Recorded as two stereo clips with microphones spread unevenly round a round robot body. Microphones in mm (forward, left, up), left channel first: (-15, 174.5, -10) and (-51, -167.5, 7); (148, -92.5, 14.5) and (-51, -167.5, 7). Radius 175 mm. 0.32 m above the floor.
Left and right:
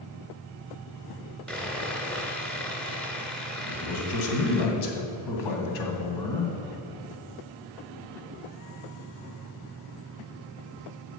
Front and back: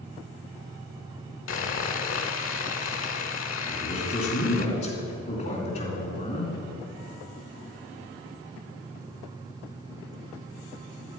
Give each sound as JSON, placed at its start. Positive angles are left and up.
{"t": 1.5, "sound": "sawing", "azimuth_deg": -5, "distance_m": 0.9}
{"t": 3.7, "sound": "a man speaking", "azimuth_deg": 80, "distance_m": 2.0}